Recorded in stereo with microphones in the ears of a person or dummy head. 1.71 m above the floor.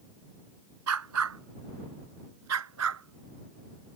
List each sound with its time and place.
0.9 s a dog barking: 80° right; by 4.0 s 75° right (ahead or behind)